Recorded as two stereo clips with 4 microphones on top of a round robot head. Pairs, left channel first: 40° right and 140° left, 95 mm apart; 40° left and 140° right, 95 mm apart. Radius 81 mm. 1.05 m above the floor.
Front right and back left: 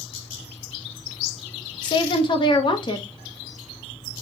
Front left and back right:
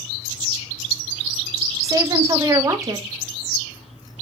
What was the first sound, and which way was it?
A woman speaking, 80° right.